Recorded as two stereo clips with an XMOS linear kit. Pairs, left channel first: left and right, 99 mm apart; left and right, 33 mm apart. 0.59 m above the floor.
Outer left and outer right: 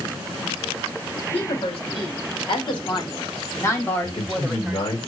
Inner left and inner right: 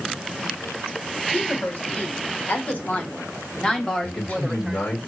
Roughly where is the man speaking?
Left.